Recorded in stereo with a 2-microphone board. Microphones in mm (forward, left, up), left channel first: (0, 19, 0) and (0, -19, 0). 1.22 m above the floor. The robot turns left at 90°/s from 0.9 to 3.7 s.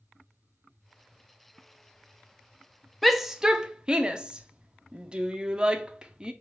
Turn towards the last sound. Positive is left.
turn(degrees=-25)  # may be behind; listen again after turning